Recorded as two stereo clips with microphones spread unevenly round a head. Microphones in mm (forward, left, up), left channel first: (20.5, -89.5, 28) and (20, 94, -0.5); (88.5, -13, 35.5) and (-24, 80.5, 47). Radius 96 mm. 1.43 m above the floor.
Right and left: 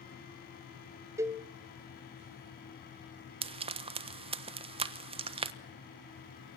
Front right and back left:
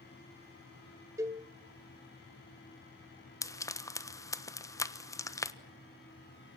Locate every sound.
1.2 s a cowbell: 165° left, 1.0 m
3.4 s frying: 30° left, 1.2 m